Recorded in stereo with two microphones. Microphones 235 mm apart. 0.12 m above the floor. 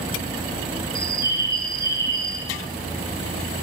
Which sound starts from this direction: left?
A bird, at 0.9 s.